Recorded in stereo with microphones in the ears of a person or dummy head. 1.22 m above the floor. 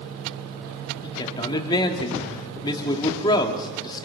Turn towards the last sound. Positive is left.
turn(degrees=25)  # may be behind; listen again after turning